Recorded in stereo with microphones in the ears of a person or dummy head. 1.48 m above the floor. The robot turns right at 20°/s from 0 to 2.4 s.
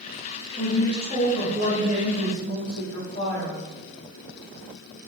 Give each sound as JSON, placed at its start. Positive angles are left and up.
{"t": 0.6, "sound": "a woman speaking", "azimuth_deg": -150, "distance_m": 1.3}